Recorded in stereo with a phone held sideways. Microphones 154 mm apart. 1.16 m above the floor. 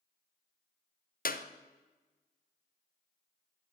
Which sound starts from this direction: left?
A clap, at 1.2 s.